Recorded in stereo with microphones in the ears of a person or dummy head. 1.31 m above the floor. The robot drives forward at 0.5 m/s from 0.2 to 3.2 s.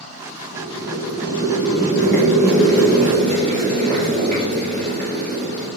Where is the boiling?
65° right (ahead or behind), 3 m; by 5.7 s 50° right (ahead or behind), 3.5 m.